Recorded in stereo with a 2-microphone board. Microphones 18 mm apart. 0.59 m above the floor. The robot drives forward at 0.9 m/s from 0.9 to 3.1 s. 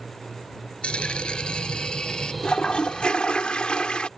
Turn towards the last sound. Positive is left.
turn(degrees=60)  # may be behind; listen again after turning